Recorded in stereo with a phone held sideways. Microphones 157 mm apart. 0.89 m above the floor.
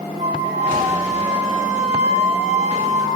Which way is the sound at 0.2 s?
55° right (ahead or behind).